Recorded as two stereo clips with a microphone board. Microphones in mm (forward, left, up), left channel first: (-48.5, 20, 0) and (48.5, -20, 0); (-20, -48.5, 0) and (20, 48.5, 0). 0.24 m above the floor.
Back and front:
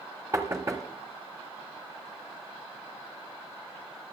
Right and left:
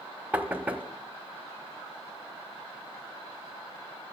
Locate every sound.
0.3 s knocking: 5° left, 1.0 m